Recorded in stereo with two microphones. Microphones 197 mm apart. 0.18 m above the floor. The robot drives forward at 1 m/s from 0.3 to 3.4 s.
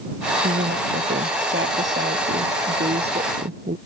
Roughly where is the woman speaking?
Right.